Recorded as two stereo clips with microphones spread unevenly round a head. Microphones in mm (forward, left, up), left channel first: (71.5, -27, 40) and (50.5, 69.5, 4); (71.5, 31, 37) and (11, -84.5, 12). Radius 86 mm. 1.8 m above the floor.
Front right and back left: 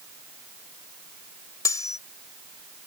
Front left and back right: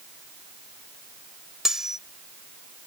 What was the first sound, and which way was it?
Cutlery clinking, 30° right.